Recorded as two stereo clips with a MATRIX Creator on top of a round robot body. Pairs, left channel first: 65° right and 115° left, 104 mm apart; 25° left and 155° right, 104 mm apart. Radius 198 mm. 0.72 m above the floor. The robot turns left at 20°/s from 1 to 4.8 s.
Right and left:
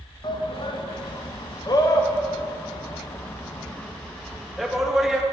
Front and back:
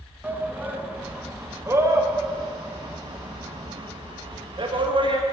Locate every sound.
0.2 s a shout: 85° right, 1.5 m; by 5.2 s 165° right, 1.5 m